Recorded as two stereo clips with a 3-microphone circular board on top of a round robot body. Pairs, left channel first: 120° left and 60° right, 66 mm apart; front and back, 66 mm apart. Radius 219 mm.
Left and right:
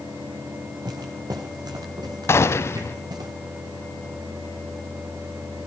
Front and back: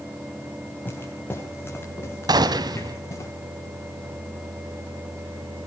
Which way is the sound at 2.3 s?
170° left.